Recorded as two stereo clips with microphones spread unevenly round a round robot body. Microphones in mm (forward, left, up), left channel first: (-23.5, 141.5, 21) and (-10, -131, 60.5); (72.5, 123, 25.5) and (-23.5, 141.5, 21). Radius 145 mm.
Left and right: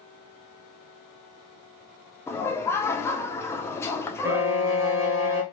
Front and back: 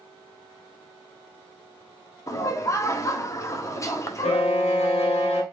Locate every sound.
2.3 s laughter: 30° left, 0.8 m
4.2 s a violin: 5° right, 0.8 m